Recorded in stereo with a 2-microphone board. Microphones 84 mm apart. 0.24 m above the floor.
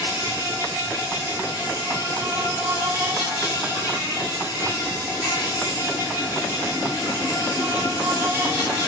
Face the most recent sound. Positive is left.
turn(degrees=-20)  # may be behind; listen again after turning